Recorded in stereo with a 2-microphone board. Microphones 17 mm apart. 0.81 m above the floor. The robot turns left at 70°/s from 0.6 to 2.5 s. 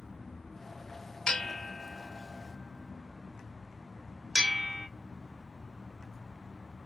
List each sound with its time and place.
1.3 s a bell: 50° left (ahead or behind), 0.6 m; by 4.9 s 35° right (ahead or behind), 0.6 m